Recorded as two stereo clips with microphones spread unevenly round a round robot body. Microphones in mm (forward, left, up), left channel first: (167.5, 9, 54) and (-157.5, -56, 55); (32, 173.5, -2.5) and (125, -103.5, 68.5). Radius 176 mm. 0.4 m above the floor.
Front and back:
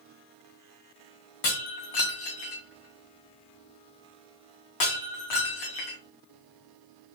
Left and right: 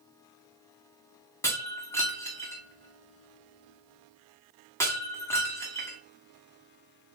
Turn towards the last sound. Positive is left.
turn(degrees=25)